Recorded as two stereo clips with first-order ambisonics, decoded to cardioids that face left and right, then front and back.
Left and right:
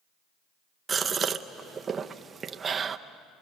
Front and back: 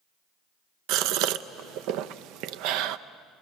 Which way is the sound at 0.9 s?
160° right.